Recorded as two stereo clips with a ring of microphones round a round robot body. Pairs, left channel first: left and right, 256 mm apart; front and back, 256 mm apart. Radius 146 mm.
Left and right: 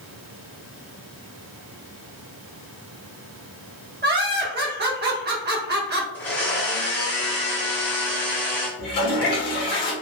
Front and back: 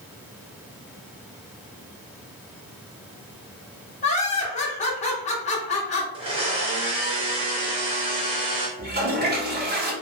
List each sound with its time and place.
4.0 s laughter: 55° right, 0.9 m
6.1 s a blender: 160° left, 0.6 m
8.8 s a toilet flushing: 135° left, 1.3 m